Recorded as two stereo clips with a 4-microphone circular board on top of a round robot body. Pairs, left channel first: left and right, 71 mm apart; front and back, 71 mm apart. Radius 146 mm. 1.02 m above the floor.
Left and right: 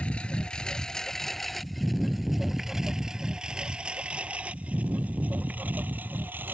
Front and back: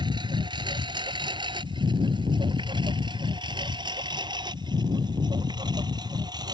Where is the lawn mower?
165° left; by 6.5 s 155° right.